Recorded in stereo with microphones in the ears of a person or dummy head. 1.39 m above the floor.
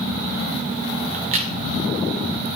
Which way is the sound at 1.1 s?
40° right (ahead or behind).